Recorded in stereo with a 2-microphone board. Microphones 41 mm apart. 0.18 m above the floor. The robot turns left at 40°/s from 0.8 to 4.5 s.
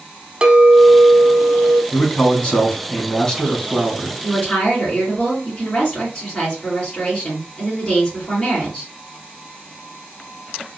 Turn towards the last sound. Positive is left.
turn(degrees=20)  # may be behind; listen again after turning